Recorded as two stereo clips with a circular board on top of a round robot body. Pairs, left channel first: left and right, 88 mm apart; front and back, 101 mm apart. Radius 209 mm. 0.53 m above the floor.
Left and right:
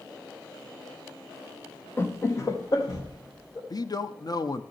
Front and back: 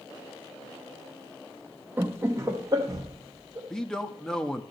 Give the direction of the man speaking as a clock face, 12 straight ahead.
9 o'clock.